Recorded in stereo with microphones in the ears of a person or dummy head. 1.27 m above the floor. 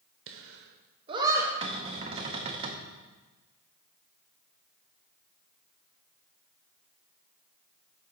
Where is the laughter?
65° right (ahead or behind), 0.7 m; by 1.5 s 5° right (ahead or behind), 0.9 m.